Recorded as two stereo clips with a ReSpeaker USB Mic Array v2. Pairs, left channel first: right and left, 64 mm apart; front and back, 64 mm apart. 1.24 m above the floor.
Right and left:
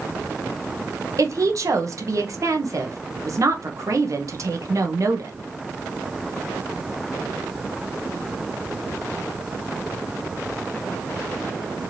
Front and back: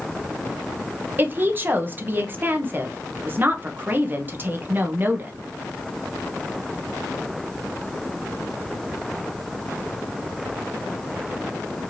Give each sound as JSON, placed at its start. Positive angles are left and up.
{"t": 1.2, "sound": "a woman speaking", "azimuth_deg": 120, "distance_m": 0.9}